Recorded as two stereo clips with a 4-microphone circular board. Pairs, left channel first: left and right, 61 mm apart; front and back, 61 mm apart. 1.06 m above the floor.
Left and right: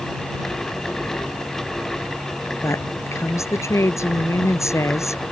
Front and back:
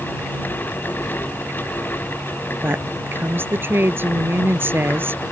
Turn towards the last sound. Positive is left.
turn(degrees=130)